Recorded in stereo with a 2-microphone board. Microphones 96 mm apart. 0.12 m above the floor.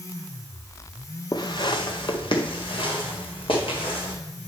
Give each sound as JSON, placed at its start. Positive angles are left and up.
{"t": 1.3, "sound": "footsteps", "side_deg": 45, "distance_m": 0.9}